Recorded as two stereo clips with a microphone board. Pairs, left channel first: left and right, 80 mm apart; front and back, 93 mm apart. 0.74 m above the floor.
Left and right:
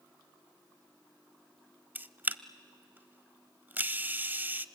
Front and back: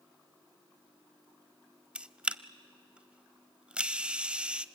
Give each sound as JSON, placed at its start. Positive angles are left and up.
{"t": 1.9, "sound": "a camera shutter", "azimuth_deg": -120, "distance_m": 0.5}